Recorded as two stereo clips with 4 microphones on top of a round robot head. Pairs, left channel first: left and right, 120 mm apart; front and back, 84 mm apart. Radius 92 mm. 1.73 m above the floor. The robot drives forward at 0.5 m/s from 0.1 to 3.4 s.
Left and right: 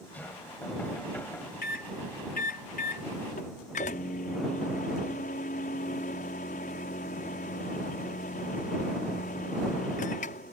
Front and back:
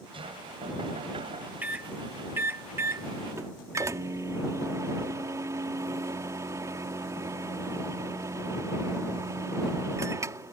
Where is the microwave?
110° left; by 10.5 s 130° left.